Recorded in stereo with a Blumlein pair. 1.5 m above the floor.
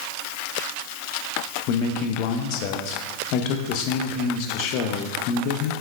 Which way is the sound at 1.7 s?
40° left.